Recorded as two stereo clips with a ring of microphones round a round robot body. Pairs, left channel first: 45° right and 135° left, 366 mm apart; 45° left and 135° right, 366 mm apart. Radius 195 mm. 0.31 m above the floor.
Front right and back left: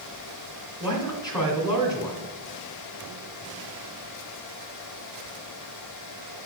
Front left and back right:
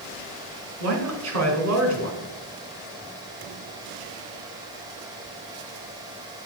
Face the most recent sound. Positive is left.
turn(degrees=-120)